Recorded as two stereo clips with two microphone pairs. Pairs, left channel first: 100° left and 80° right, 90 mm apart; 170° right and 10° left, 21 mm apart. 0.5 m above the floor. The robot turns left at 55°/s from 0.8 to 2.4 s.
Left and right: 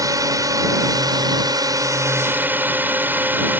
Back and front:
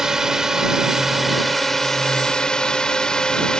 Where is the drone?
50° right; by 3.6 s 140° right.